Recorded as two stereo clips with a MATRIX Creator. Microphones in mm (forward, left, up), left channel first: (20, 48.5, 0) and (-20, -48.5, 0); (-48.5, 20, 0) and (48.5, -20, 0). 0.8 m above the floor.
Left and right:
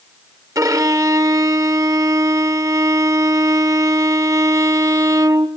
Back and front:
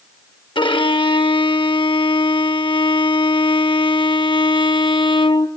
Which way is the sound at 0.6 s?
165° right.